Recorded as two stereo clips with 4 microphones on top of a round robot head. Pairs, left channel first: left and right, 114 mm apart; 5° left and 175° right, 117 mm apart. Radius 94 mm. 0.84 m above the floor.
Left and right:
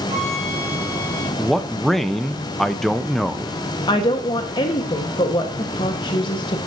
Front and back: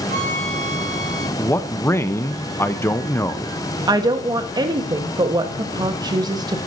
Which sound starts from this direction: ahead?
A man speaking, at 1.4 s.